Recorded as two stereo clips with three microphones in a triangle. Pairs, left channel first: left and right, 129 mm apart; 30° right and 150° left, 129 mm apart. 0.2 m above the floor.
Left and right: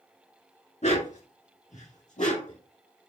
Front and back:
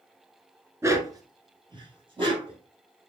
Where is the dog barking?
85° left, 0.8 m; by 2.6 s 105° left, 2.5 m.